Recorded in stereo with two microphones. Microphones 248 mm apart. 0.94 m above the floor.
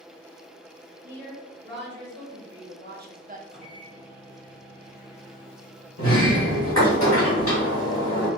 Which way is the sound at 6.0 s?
65° left (ahead or behind).